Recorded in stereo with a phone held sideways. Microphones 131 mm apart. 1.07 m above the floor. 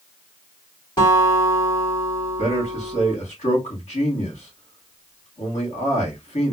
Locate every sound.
1.0 s a guitar: 40° left (ahead or behind), 3 m
2.4 s a man speaking: 60° left (ahead or behind), 2.5 m